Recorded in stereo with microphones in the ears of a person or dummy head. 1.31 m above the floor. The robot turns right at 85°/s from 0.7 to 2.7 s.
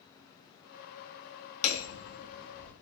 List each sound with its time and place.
1.6 s hammering: 80° left, 1.3 m; by 2.7 s 170° left, 1.3 m